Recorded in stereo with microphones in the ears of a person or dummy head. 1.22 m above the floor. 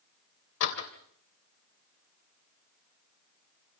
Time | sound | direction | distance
0.6 | a door slam | 65° left (ahead or behind) | 3 m